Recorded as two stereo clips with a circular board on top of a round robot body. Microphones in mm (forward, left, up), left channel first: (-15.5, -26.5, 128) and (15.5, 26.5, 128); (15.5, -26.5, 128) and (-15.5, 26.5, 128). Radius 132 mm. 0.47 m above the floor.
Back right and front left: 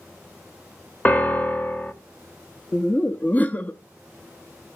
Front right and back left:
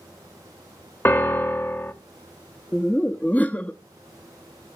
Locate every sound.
1.1 s a piano: 75° right, 1.2 m
2.7 s laughter: 95° right, 0.8 m